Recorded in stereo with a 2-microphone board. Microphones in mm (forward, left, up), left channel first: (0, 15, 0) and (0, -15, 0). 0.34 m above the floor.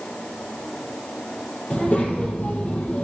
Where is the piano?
No piano in this recording.